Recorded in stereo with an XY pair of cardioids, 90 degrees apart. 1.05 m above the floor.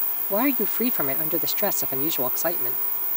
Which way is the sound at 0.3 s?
10° left.